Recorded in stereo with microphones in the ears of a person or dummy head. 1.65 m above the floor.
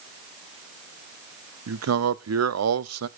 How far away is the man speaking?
About 0.6 m.